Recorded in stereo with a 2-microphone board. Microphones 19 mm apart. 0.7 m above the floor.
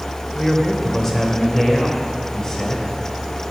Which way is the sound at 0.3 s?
10° left (ahead or behind).